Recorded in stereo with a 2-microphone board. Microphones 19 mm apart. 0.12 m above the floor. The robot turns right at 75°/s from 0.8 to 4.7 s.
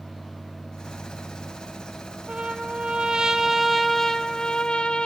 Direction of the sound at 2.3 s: 115° right.